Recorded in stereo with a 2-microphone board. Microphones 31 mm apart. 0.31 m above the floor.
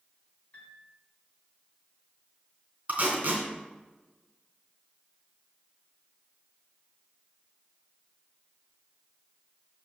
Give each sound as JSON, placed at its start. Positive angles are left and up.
{"t": 0.5, "sound": "a piano", "side_deg": 50, "distance_m": 3.0}
{"t": 2.9, "sound": "tape being pulled", "side_deg": -55, "distance_m": 3.0}